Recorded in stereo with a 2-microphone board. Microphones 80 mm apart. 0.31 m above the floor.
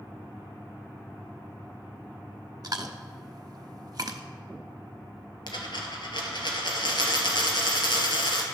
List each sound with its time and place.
2.6 s chewing: 50° right (ahead or behind), 0.6 m
5.5 s a dropped coin: 70° left (ahead or behind), 1.6 m